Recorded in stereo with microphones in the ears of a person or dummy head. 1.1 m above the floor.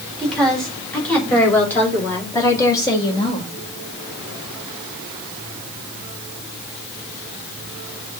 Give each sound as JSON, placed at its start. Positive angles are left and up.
{"t": 0.2, "sound": "a woman speaking", "side_deg": 5, "distance_m": 3.5}